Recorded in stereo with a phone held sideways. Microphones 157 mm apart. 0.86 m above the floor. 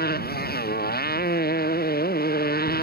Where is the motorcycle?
85° left; by 2.9 s 80° left.